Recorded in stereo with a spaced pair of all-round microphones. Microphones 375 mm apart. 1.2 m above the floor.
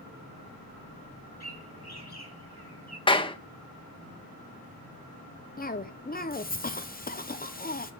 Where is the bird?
80° left, 6 m.